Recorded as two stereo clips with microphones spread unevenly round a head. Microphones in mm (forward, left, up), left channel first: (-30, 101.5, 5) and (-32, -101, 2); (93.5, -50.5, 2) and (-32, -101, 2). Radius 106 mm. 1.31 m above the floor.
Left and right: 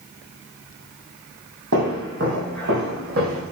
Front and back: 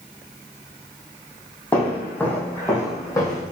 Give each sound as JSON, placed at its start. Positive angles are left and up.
{"t": 1.7, "sound": "footsteps", "azimuth_deg": -55, "distance_m": 3.5}